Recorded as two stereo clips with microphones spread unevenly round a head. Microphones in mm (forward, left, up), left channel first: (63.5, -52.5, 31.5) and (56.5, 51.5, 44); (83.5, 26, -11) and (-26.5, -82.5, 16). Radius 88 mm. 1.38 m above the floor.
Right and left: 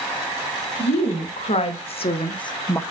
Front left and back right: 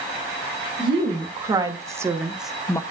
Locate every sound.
0.8 s a woman speaking: 75° right, 3.5 m; by 2.8 s 25° right, 1.0 m